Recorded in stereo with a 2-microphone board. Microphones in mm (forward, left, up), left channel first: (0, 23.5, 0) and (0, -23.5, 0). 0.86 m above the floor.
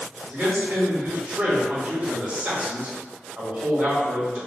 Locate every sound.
0.3 s a man speaking: 45° right (ahead or behind), 1.6 m